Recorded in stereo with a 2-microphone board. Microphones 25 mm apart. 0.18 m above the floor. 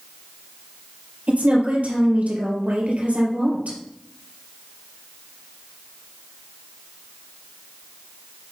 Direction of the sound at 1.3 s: 65° right (ahead or behind).